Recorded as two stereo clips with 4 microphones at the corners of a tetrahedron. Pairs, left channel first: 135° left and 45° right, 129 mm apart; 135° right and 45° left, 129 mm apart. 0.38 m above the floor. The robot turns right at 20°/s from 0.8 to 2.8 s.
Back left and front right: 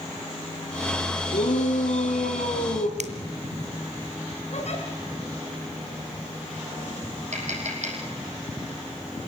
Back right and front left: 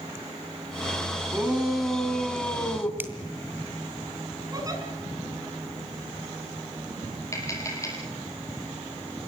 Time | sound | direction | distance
1.3 | a shout | 125° left | 4 m
3.0 | a finger snap | 30° right | 2.0 m
4.5 | a giggle | 105° left | 5 m
7.3 | tapping | 70° right | 6.5 m